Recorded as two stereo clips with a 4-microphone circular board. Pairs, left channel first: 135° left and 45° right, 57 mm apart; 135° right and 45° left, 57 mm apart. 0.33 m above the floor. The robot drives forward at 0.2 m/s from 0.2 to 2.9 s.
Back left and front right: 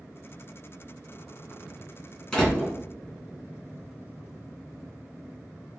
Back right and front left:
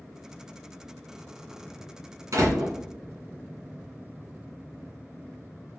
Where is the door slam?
70° left, 2.5 m.